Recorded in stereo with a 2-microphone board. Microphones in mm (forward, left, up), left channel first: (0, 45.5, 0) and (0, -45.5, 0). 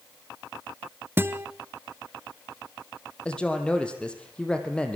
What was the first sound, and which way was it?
A guitar, 25° right (ahead or behind).